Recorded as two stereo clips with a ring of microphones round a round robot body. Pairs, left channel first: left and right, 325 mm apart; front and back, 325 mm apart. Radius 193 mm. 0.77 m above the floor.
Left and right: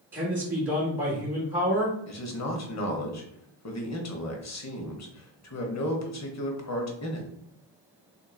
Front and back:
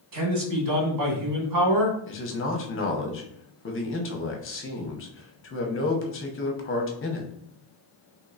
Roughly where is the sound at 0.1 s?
Behind.